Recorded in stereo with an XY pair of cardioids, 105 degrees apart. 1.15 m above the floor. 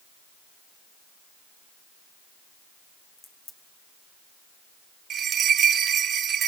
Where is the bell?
60° right, 0.6 m.